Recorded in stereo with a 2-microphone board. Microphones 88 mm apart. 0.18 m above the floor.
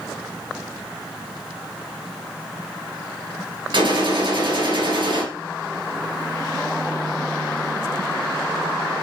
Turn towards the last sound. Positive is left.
turn(degrees=-60)  # may be behind; listen again after turning